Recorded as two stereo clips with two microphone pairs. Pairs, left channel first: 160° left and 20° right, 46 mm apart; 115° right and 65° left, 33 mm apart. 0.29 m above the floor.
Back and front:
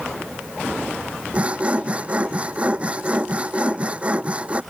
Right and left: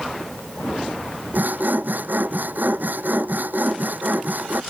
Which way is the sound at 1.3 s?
45° left.